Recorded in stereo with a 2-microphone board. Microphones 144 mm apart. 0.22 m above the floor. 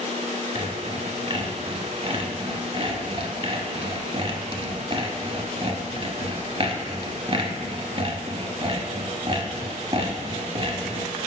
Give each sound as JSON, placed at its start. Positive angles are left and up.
{"t": 0.6, "sound": "sawing", "side_deg": -40, "distance_m": 0.7}